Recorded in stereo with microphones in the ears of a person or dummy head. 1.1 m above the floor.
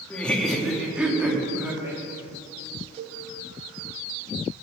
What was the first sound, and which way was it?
Laughter, 5° left (ahead or behind).